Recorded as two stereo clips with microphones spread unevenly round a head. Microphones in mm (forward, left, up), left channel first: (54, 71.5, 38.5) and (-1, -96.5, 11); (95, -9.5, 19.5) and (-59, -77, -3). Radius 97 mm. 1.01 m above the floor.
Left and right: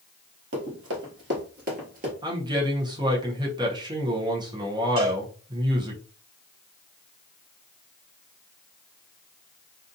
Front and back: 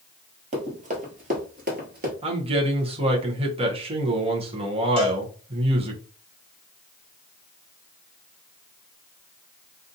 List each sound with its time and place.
0.5 s running footsteps: 110° right, 1.5 m; by 2.1 s 160° right, 1.3 m
2.2 s a man speaking: 145° right, 0.7 m
5.0 s a cowbell: 100° right, 1.1 m